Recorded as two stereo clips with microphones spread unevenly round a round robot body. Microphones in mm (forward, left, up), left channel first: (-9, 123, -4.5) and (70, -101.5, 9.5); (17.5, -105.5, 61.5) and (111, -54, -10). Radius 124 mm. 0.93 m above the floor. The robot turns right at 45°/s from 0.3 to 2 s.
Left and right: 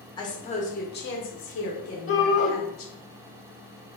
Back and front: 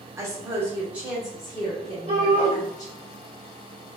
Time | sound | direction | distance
0.2 | a woman speaking | 45° left | 1.3 m
2.1 | a shout | 70° left | 1.7 m